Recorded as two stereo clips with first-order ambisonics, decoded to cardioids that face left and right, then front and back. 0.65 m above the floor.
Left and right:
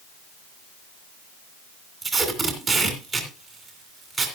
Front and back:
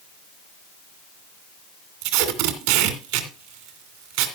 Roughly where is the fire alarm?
No fire alarm in this recording.